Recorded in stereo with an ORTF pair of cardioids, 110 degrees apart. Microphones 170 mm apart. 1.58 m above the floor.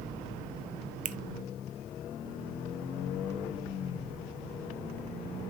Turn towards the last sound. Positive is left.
turn(degrees=-50)